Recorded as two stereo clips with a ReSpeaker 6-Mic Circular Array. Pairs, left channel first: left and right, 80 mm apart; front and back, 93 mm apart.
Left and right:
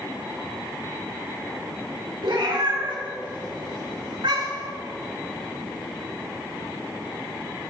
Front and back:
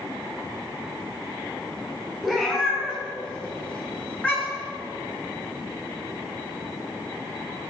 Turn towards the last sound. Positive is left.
turn(degrees=-70)